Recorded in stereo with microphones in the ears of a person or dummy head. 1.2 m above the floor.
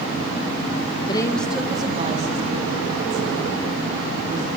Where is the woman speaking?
25° left (ahead or behind), 1.2 m; by 4.5 s 65° right (ahead or behind), 4.5 m.